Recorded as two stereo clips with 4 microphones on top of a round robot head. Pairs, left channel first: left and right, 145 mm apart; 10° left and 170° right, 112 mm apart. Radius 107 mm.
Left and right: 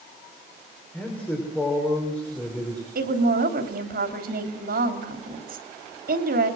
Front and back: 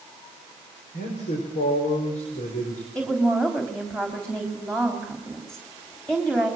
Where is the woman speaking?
75° right, 3 m.